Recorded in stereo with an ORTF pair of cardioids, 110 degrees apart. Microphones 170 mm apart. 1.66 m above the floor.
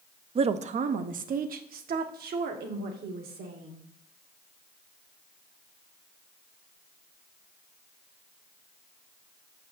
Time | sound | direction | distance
0.3 | a woman speaking | 35° right | 0.6 m